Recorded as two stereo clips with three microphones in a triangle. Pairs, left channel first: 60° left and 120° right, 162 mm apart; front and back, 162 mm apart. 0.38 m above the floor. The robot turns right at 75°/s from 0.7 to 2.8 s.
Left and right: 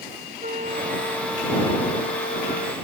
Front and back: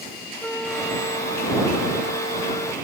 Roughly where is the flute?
Right.